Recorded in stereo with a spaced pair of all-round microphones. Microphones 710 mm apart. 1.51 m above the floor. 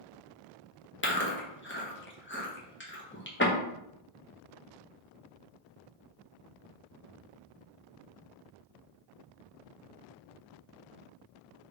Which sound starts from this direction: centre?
Chewing, at 1.0 s.